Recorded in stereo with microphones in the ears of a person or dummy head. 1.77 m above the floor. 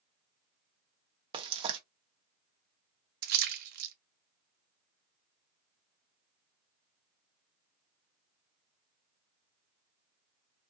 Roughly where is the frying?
Right.